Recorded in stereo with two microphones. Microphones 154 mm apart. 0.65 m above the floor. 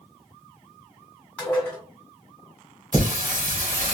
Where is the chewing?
No chewing in this recording.